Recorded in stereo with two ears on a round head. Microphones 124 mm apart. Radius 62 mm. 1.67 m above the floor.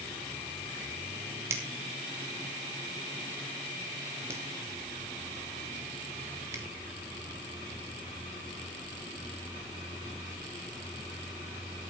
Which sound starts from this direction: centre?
A finger snap, at 1.5 s.